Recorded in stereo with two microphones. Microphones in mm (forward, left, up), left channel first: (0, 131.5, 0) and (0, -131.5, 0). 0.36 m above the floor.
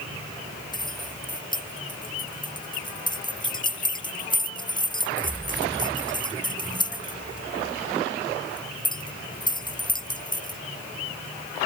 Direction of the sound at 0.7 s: 15° left (ahead or behind).